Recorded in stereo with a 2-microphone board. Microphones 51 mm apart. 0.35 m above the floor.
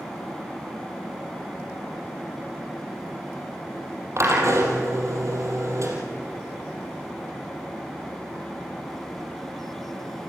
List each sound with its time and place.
4.2 s a drill: 65° right (ahead or behind), 5 m